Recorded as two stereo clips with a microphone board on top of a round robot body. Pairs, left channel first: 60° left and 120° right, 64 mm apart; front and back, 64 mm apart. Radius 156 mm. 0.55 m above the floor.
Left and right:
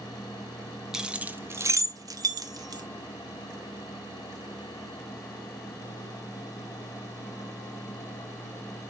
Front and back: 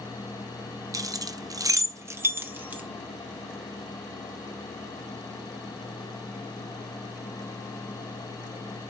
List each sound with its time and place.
0.9 s keys jangling: 160° left, 0.6 m; by 2.8 s 115° right, 0.9 m